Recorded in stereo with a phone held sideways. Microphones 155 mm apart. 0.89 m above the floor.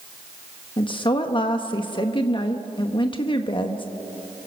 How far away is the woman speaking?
About 1.2 m.